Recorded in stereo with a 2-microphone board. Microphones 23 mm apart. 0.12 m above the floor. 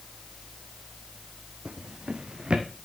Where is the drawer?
40° right (ahead or behind), 1.8 m.